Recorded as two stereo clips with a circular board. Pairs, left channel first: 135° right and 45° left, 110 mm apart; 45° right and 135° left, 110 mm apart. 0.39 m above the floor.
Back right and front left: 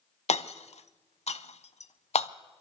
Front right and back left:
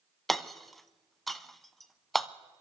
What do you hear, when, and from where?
0.3 s hammering: 135° right, 0.6 m